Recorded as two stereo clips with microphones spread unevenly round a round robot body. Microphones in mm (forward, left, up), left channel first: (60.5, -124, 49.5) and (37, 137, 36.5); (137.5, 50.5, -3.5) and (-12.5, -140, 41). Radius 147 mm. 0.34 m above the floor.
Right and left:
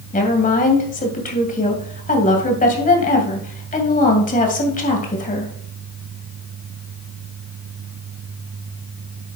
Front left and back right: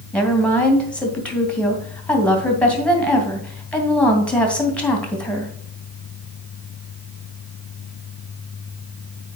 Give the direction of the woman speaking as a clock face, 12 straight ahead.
1 o'clock.